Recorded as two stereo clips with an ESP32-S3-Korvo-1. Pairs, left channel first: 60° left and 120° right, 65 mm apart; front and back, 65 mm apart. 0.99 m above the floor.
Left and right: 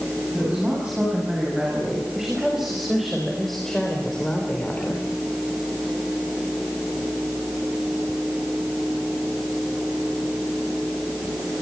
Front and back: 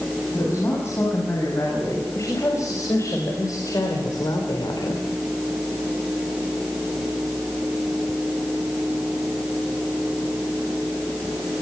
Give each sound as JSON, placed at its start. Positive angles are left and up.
{"t": 0.3, "sound": "a woman speaking", "azimuth_deg": -50, "distance_m": 9.0}